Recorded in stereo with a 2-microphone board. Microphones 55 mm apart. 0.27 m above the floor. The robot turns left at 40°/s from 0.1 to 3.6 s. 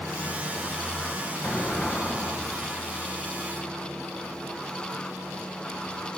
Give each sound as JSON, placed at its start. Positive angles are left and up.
{"t": 1.4, "sound": "an explosion", "azimuth_deg": 30, "distance_m": 1.3}